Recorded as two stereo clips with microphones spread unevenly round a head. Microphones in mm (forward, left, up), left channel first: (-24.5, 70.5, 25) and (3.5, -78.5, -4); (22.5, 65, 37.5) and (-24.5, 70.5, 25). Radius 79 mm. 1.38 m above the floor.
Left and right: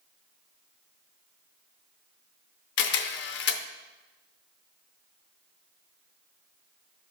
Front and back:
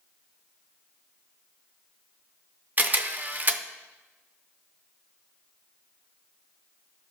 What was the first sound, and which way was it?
A camera shutter, 120° left.